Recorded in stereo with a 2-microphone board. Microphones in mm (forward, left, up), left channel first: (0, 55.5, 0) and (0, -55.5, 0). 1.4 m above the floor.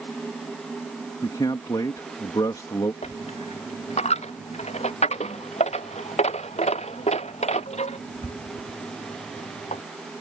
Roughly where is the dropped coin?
Left.